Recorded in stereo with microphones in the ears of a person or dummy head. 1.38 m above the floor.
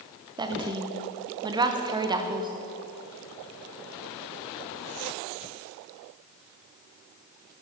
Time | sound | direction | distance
0.4 | a woman speaking | 15° right (ahead or behind) | 0.8 m